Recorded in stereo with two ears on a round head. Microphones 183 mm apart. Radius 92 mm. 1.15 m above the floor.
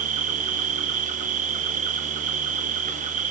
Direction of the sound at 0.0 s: 35° right (ahead or behind).